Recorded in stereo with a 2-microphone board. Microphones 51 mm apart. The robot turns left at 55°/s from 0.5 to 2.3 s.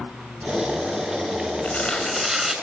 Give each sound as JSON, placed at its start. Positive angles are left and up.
{"t": 1.6, "sound": "tearing paper", "azimuth_deg": 30, "distance_m": 5.5}